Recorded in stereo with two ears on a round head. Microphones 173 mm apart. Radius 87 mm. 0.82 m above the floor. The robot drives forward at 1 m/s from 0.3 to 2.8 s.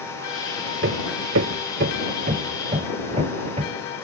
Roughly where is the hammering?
Right.